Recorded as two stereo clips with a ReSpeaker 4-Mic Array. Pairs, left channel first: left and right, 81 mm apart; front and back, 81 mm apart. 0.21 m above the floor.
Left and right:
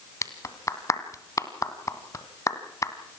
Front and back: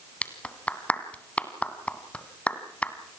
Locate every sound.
0.2 s a clap: 65° left, 1.7 m